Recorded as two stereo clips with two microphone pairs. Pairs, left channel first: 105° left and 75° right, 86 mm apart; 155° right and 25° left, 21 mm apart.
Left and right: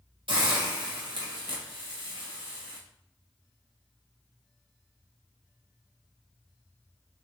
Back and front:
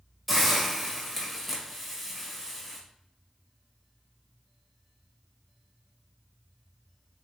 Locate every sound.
0.3 s a hiss: 70° right, 1.0 m